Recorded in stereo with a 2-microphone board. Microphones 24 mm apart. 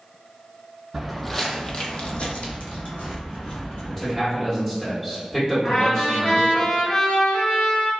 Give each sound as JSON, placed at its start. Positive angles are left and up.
{"t": 0.9, "sound": "footsteps", "side_deg": -5, "distance_m": 0.6}
{"t": 3.9, "sound": "a man speaking", "side_deg": 15, "distance_m": 1.4}
{"t": 5.6, "sound": "a trumpet", "side_deg": 45, "distance_m": 1.5}